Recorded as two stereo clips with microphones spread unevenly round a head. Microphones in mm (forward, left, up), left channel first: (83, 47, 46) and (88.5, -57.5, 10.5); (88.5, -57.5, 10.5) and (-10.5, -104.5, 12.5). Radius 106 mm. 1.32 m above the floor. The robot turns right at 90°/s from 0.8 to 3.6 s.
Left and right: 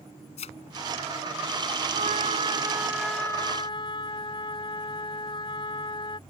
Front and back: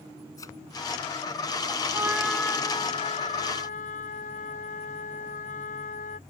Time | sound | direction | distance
0.4 | a thud | 100° left | ?
1.9 | a trumpet | 95° right | ?